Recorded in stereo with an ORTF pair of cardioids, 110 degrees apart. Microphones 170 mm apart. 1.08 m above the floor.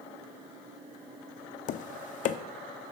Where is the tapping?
50° left, 0.5 m.